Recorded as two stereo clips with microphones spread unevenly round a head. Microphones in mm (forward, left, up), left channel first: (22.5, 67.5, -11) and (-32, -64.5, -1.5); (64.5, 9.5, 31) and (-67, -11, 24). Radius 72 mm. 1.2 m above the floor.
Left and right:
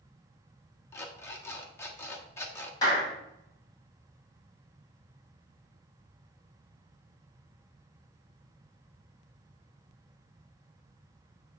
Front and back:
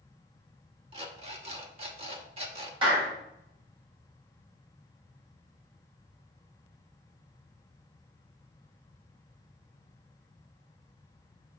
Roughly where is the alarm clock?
Behind left.